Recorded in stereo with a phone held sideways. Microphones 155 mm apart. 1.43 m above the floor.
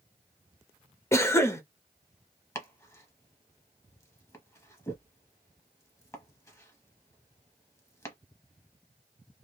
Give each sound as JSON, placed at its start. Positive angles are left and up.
{"t": 1.1, "sound": "a cough", "side_deg": 15, "distance_m": 0.7}
{"t": 2.5, "sound": "chopping", "side_deg": 20, "distance_m": 0.9}